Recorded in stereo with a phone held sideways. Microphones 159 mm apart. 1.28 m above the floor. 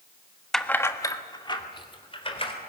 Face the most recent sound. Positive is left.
turn(degrees=35)  # may be behind; listen again after turning